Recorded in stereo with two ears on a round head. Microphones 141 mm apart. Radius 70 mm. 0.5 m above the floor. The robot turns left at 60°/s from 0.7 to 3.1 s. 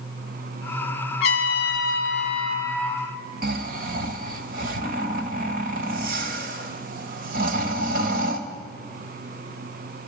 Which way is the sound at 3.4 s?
60° right (ahead or behind).